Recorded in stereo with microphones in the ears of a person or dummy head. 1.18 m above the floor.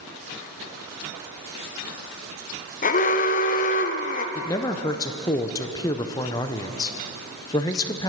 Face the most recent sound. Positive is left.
turn(degrees=20)  # may be behind; listen again after turning